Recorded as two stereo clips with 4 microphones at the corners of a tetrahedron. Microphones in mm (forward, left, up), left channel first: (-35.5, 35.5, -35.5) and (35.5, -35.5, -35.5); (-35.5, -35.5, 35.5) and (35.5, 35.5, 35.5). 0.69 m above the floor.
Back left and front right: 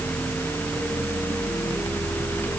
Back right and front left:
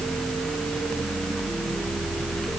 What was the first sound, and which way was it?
Only background noise.